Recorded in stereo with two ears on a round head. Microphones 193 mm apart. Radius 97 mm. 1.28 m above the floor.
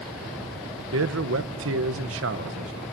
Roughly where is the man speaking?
Right.